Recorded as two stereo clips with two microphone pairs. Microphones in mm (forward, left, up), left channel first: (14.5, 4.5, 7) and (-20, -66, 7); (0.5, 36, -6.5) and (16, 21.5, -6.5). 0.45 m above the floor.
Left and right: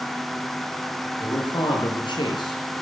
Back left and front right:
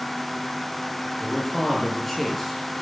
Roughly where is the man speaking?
Ahead left.